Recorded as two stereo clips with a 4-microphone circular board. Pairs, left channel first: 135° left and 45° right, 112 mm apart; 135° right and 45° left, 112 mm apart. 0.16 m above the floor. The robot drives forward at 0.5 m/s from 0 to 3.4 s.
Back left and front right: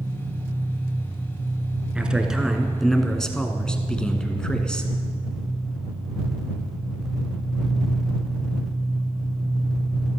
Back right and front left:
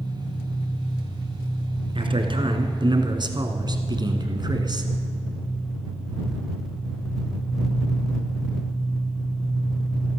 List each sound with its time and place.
0.0 s an engine running: 120° right, 6.5 m; by 10.2 s 130° right, 7.5 m
1.9 s a man speaking: 35° left, 2.0 m; by 4.9 s 55° left, 1.6 m